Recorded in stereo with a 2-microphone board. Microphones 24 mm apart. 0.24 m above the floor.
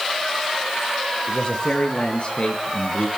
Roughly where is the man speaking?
Left.